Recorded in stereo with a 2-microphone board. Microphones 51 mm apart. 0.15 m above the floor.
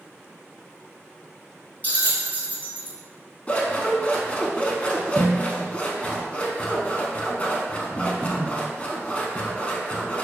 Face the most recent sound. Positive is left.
turn(degrees=25)  # may be behind; listen again after turning